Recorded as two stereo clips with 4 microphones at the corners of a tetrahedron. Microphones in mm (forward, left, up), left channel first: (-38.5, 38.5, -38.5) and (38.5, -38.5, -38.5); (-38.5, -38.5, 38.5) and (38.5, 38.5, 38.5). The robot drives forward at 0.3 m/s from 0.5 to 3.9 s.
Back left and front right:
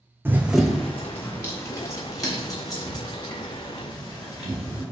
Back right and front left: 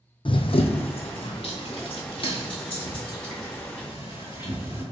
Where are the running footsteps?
115° right, 0.5 m; by 4.8 s 175° right, 3.5 m.